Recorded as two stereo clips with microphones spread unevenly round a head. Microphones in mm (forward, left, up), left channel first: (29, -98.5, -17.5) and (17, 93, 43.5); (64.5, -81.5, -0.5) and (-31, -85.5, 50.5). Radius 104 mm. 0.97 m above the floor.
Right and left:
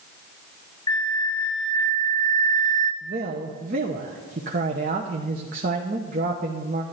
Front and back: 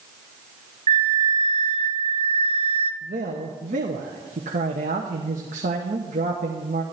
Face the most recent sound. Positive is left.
turn(degrees=150)